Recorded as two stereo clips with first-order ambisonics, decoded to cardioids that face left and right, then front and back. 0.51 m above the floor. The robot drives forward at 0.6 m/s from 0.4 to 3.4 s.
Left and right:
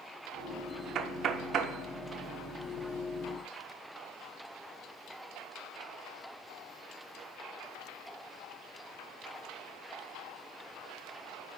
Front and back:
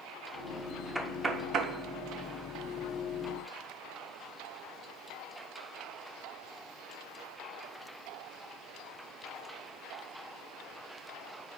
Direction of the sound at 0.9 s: 90° right.